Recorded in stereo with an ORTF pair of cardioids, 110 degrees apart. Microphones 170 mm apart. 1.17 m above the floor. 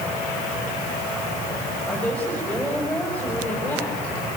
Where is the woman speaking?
5° left, 7 m.